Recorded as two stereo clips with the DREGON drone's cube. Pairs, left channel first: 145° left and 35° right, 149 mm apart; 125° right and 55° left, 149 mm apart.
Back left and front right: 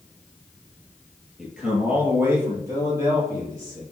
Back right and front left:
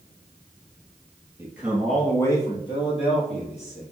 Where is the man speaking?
45° left, 1.2 m; by 3.8 s 100° right, 2.5 m.